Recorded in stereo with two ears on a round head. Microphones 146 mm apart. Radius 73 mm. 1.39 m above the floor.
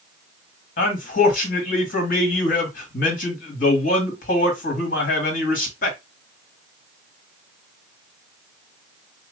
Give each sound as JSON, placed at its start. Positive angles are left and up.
{"t": 0.8, "sound": "a man speaking", "side_deg": 55, "distance_m": 1.9}